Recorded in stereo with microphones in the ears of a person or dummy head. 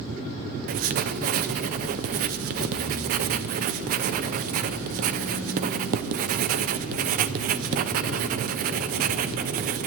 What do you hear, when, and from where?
0.7 s writing: 45° right (ahead or behind), 0.8 m